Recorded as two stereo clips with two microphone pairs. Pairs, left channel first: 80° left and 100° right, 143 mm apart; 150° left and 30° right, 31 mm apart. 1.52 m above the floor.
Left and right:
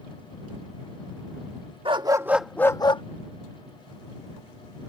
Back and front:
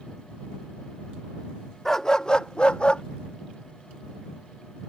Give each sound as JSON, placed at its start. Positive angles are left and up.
{"t": 1.9, "sound": "a dog barking", "azimuth_deg": -135}